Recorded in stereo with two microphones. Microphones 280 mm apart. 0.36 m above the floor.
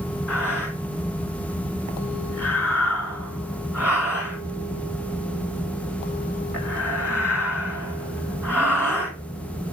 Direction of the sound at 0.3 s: 10° right (ahead or behind).